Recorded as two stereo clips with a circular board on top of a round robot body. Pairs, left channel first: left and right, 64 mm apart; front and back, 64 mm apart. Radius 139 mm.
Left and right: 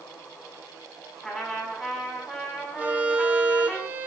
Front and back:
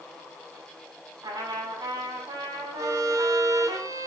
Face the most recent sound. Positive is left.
turn(degrees=-155)